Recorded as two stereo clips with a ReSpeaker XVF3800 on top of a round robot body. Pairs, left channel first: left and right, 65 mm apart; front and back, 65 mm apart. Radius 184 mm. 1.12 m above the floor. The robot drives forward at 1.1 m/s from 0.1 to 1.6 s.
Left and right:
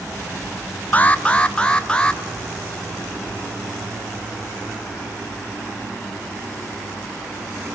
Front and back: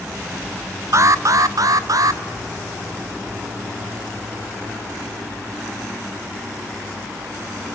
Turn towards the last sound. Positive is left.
turn(degrees=165)